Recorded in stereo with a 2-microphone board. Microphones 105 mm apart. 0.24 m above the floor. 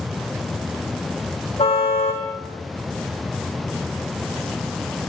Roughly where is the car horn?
Left.